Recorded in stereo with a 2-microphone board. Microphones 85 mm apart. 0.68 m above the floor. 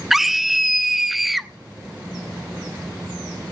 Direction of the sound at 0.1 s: 5° right (ahead or behind).